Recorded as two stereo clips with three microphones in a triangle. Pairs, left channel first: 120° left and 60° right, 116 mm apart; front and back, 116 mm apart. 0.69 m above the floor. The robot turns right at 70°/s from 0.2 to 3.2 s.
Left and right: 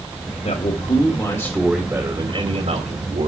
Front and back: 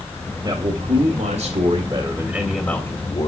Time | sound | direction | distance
0.4 | a man speaking | 130° left | 2.5 m